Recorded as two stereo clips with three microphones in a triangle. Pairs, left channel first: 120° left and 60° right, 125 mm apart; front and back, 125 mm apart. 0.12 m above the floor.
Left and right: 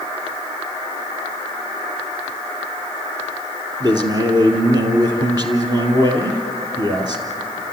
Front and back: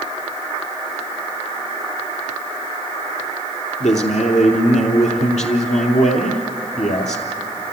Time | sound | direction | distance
3.8 | a man speaking | 5° right | 2.5 m